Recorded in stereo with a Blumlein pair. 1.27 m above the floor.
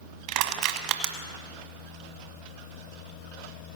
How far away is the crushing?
About 1.4 m.